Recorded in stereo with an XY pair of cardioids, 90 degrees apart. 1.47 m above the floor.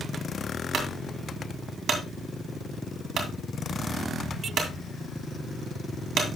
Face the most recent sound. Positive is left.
turn(degrees=-65)